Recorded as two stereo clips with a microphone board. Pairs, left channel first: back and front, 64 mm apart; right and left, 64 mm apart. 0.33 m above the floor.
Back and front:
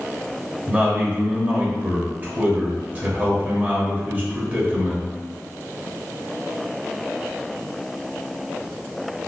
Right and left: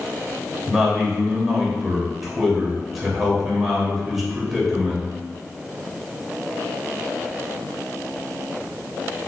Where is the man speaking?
5° left, 0.9 m.